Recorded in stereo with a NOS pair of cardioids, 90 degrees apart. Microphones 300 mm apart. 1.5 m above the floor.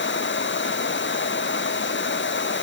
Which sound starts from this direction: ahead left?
A machine running, at 0.0 s.